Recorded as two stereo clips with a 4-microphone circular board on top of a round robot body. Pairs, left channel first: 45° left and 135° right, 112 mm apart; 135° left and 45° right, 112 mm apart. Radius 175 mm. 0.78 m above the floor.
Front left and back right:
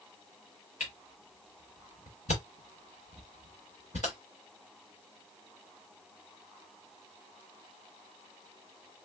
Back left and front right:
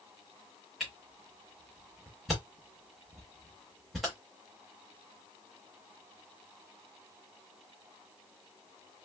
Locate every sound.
0.8 s a camera shutter: 45° left, 0.6 m